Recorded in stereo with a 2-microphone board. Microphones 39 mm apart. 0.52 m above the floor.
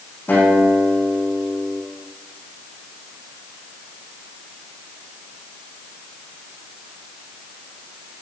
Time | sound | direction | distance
0.3 | a guitar | 60° left (ahead or behind) | 7 m